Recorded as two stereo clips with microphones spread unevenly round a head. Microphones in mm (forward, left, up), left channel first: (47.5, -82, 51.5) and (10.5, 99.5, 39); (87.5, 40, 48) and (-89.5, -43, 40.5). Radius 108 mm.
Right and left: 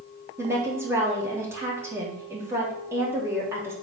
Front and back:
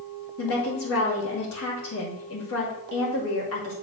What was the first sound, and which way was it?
A woman speaking, 25° left.